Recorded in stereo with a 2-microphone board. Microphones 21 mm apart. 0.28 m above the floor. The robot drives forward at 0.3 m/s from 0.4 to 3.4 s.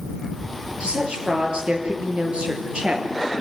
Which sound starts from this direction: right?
A woman speaking, at 0.8 s.